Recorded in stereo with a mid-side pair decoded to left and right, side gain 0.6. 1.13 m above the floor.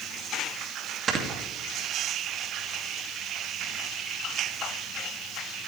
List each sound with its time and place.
1.1 s snoring: 40° right, 2 m